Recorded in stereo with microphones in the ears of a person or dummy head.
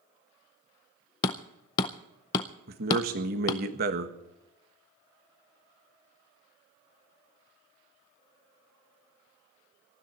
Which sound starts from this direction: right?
A man speaking, at 2.7 s.